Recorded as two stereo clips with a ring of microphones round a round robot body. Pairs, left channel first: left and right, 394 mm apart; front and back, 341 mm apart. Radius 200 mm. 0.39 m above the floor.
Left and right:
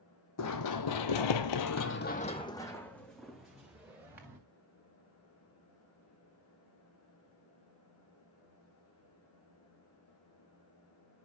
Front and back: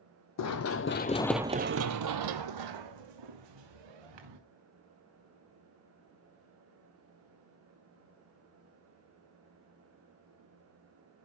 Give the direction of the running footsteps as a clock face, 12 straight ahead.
11 o'clock.